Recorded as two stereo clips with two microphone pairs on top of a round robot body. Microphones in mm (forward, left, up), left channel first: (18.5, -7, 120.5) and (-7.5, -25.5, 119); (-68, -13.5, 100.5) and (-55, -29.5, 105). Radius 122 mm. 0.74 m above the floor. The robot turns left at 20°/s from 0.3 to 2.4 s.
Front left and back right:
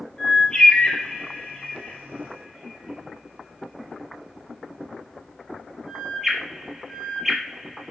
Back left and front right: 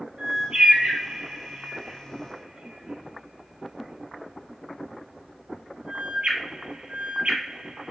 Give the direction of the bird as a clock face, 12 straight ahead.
1 o'clock.